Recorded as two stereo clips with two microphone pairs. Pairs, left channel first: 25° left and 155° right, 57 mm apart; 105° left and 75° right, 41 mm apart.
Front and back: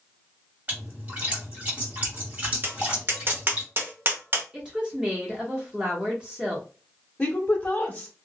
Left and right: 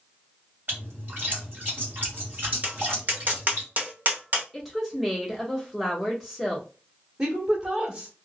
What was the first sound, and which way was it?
A splash, 105° right.